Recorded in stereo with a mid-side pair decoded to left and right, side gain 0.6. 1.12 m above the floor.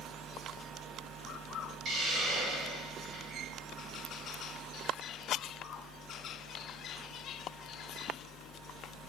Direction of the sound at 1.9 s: 60° right.